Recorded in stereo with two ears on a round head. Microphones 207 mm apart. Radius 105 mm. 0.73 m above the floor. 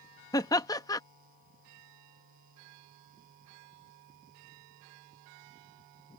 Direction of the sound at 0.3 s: 15° left (ahead or behind).